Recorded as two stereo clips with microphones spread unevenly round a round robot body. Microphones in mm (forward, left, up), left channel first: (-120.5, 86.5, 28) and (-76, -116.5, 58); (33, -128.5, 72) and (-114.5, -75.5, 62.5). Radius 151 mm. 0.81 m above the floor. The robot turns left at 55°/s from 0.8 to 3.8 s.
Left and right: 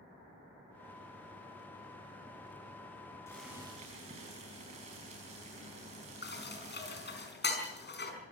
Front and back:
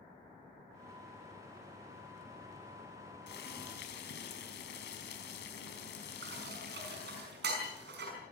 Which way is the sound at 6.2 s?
140° left.